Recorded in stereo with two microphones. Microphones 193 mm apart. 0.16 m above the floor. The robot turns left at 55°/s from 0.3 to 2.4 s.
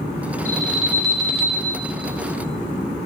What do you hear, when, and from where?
0.5 s an alarm: 15° left, 2.0 m; by 1.7 s 55° right, 2.0 m